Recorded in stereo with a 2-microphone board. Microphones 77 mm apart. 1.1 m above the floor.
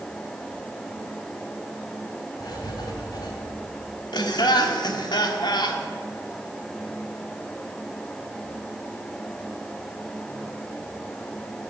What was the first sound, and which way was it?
Writing, 65° left (ahead or behind).